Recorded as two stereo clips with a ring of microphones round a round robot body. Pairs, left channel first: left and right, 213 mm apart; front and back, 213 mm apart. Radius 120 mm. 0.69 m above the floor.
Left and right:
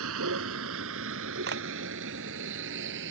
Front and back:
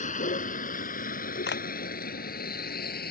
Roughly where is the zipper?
No zipper in this recording.